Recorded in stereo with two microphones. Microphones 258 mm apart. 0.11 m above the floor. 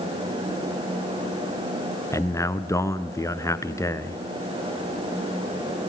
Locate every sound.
2.1 s a man speaking: 10° left (ahead or behind), 1.1 m